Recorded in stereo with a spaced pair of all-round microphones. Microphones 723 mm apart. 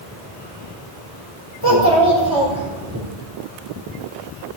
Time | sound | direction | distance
1.6 | a child speaking | 30° right (ahead or behind) | 3.5 m